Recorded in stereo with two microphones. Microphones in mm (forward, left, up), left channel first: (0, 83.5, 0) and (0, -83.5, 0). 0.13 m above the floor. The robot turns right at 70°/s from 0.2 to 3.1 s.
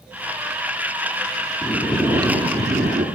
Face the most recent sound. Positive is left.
turn(degrees=-85)